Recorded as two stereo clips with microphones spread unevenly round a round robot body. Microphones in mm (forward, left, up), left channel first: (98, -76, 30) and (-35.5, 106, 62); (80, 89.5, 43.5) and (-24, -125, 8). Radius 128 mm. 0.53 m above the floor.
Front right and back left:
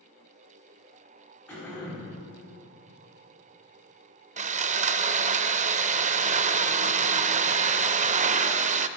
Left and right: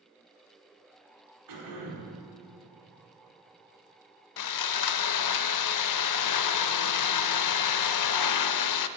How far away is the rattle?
No rattle in this recording.